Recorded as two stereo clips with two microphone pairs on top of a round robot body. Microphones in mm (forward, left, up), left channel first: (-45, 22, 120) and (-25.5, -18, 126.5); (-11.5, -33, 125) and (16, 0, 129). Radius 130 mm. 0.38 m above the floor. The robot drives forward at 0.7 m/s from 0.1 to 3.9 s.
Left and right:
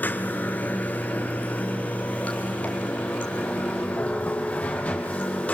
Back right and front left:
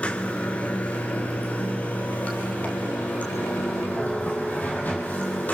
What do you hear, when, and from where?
0.0 s running water: 165° left, 1.5 m; by 5.5 s 175° left, 4 m